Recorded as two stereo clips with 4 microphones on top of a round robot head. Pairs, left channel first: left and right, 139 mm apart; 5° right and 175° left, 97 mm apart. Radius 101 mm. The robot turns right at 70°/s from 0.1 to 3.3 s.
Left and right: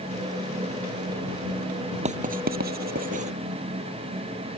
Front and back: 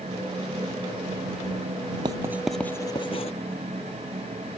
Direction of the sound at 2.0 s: 130° right.